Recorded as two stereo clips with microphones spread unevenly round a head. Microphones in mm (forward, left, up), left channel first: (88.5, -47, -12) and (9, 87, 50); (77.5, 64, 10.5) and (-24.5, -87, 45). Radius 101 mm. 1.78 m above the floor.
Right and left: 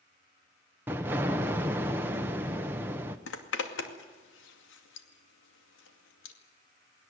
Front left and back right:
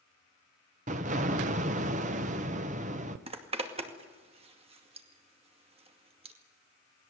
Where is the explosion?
170° right, 0.9 m.